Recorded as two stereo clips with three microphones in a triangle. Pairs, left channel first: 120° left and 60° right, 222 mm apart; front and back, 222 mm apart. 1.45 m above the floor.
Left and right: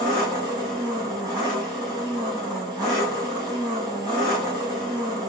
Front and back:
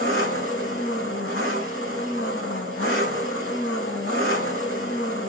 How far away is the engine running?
About 5 m.